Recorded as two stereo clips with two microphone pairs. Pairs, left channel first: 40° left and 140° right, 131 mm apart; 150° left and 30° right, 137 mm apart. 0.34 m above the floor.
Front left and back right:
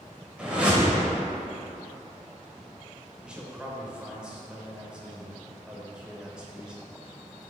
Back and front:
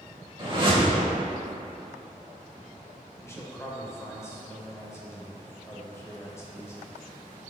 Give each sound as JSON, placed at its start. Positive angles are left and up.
{"t": 0.4, "sound": "a whoosh", "azimuth_deg": -60, "distance_m": 1.4}
{"t": 3.2, "sound": "a man speaking", "azimuth_deg": 155, "distance_m": 0.9}